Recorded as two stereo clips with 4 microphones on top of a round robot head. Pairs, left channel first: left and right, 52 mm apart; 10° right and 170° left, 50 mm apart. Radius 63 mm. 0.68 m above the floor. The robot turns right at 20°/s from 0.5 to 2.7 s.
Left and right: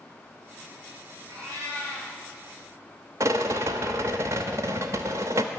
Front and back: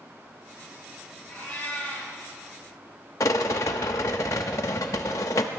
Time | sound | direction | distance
1.3 | a cat meowing | 80° right | 6.5 m
3.2 | a rattle | 45° right | 0.7 m